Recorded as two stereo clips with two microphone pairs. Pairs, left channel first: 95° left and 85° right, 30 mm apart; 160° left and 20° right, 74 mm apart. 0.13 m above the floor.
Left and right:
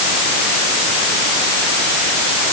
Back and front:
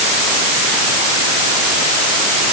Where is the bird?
I don't hear a bird.